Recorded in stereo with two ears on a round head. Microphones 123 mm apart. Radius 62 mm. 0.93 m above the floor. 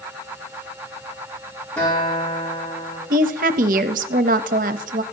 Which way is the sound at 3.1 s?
65° right (ahead or behind).